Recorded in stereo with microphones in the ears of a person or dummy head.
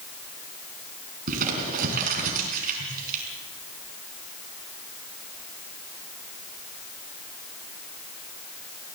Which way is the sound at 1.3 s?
45° right (ahead or behind).